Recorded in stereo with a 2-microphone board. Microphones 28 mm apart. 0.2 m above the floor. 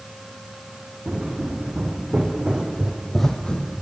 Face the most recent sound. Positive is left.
turn(degrees=45)  # may be behind; listen again after turning